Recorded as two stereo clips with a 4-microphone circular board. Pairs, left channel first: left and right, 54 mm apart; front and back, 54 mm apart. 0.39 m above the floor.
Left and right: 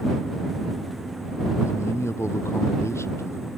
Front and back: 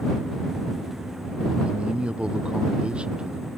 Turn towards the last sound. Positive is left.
turn(degrees=110)